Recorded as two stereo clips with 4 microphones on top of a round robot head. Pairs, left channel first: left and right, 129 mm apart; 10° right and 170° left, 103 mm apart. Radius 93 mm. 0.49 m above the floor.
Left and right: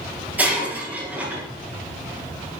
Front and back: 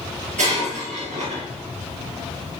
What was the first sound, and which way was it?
Breaking glass, 170° right.